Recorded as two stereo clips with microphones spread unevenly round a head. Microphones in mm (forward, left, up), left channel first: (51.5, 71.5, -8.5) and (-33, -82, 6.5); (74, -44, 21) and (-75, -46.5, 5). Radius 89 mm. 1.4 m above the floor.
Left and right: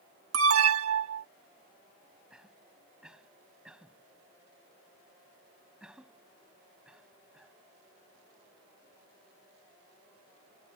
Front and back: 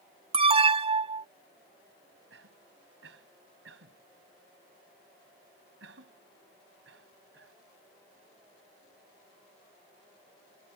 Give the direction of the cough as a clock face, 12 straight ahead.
7 o'clock.